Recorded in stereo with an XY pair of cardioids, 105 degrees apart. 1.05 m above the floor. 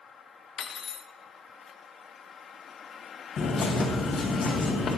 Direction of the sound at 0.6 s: 60° left.